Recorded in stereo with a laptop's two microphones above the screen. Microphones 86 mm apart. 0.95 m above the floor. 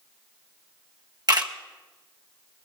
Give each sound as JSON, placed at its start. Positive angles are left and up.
{"t": 1.3, "sound": "a camera shutter", "side_deg": -50, "distance_m": 1.3}